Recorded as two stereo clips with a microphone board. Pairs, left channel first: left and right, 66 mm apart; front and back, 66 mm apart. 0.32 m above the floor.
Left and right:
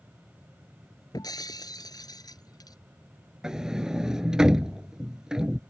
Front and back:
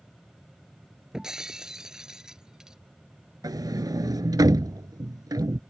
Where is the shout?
No shout in this recording.